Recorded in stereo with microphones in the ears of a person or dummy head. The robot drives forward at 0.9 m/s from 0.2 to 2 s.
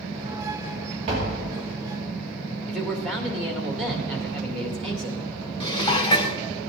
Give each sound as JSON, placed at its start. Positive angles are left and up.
{"t": 1.1, "sound": "tapping", "side_deg": -35, "distance_m": 2.5}
{"t": 2.7, "sound": "a man speaking", "side_deg": 0, "distance_m": 1.8}
{"t": 5.6, "sound": "dishes clattering", "side_deg": 25, "distance_m": 0.6}